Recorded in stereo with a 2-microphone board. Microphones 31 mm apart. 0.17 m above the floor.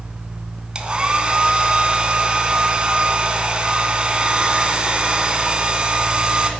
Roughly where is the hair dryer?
Right.